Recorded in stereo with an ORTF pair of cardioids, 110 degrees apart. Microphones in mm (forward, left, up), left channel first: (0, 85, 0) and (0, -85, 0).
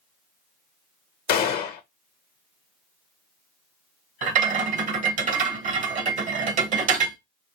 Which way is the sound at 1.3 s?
65° left.